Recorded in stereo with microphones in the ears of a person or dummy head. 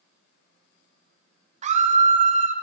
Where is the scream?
35° right (ahead or behind), 0.6 m.